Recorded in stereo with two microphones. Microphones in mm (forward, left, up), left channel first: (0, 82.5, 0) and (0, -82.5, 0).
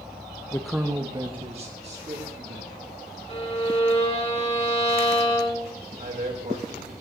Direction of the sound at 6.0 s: 55° right (ahead or behind).